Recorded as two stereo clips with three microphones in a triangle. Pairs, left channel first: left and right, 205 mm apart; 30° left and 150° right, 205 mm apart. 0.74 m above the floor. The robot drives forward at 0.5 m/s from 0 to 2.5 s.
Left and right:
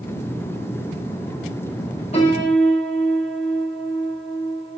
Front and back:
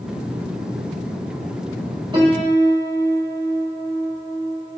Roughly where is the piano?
Behind left.